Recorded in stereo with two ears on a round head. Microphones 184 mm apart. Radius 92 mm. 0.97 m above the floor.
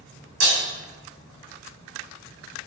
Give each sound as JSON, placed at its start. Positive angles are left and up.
{"t": 0.4, "sound": "breaking glass", "side_deg": -65, "distance_m": 4.0}